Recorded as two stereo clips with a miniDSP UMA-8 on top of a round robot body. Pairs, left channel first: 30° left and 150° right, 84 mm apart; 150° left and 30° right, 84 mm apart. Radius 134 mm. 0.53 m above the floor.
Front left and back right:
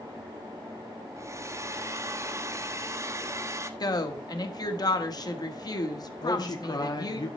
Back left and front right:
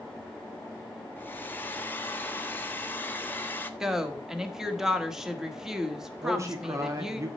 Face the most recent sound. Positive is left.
turn(degrees=15)